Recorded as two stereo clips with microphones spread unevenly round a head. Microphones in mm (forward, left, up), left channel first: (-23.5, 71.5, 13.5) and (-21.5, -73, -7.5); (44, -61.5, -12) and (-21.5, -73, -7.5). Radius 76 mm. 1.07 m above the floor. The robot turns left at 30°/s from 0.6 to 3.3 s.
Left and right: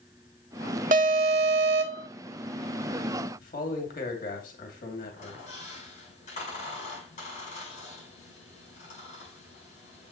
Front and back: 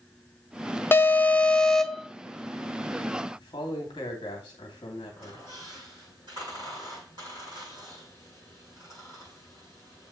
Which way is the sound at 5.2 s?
130° left.